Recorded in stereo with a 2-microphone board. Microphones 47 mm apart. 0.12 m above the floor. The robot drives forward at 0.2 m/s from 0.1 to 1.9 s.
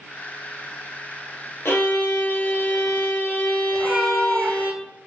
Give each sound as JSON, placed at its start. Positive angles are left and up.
{"t": 1.6, "sound": "a violin", "side_deg": 70, "distance_m": 0.9}
{"t": 3.7, "sound": "a cat meowing", "side_deg": -5, "distance_m": 0.8}